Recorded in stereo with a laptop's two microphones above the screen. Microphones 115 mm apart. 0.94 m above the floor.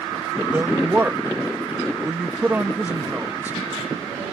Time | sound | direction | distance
0.5 | a woman speaking | 15° right (ahead or behind) | ?